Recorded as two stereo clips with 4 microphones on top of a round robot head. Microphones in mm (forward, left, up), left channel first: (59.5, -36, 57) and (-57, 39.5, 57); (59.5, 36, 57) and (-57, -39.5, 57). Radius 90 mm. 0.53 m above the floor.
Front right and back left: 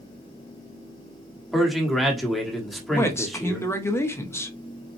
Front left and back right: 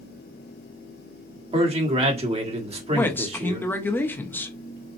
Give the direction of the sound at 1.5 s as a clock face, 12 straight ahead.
4 o'clock.